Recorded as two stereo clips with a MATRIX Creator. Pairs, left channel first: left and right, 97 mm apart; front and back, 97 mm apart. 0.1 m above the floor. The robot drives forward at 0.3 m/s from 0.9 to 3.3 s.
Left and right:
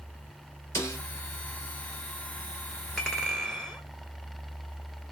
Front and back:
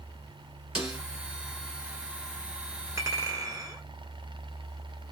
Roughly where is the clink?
Behind.